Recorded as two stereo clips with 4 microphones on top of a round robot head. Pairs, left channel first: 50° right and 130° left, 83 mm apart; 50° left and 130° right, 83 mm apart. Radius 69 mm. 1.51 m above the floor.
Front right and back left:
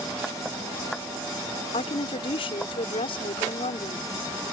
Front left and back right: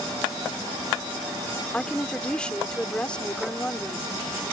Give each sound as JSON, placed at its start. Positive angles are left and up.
{"t": 1.7, "sound": "a woman speaking", "azimuth_deg": -30}